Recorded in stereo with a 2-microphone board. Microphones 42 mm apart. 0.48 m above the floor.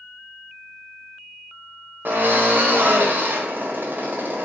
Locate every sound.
2.0 s a drill: 50° right (ahead or behind), 1.0 m